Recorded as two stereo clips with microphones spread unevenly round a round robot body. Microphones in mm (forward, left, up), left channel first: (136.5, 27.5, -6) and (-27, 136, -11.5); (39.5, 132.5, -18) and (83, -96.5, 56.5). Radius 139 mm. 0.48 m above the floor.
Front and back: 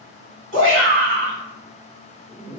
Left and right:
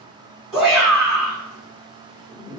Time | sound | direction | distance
0.5 | a shout | straight behind | 1.5 m